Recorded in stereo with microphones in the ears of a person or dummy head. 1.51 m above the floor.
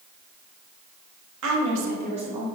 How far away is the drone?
No drone in this recording.